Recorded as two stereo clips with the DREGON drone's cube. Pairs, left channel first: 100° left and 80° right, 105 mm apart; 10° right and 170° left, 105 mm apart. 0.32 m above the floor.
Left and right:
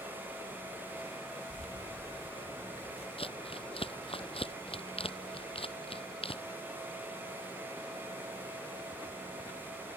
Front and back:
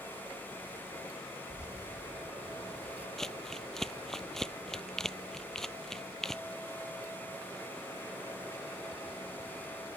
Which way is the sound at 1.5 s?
90° left.